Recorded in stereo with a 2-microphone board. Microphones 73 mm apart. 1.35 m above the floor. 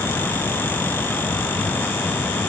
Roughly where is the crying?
No crying in this recording.